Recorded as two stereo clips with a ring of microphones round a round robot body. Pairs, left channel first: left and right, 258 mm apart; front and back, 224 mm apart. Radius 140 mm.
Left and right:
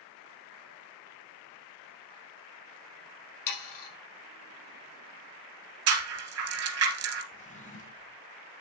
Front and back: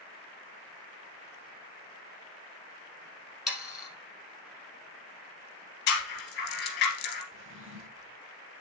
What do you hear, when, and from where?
3.5 s sawing: 90° left, 4.5 m
5.9 s a rattle: 55° right, 2.0 m
7.3 s a drawer: 150° left, 1.7 m